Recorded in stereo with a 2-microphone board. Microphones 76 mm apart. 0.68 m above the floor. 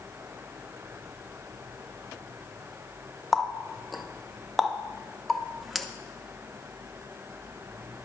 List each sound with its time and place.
3.3 s a running tap: centre (ahead or behind), 0.6 m